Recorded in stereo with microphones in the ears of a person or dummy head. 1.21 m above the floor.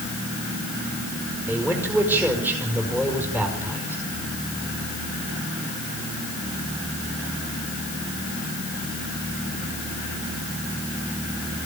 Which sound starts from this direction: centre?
A man speaking, at 1.5 s.